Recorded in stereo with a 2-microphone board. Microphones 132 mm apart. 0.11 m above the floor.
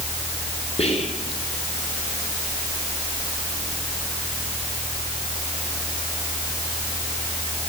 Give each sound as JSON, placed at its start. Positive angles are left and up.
{"t": 0.8, "sound": "whispering", "side_deg": 50, "distance_m": 3.0}